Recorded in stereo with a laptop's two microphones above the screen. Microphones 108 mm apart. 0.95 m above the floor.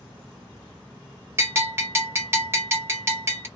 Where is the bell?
25° right (ahead or behind), 0.9 m.